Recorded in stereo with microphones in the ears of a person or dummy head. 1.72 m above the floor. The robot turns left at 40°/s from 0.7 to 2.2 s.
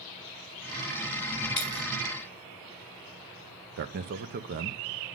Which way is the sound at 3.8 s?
50° right (ahead or behind).